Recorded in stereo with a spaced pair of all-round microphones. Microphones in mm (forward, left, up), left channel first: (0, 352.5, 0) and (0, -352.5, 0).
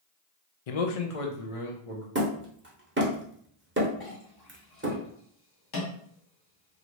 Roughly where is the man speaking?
Left.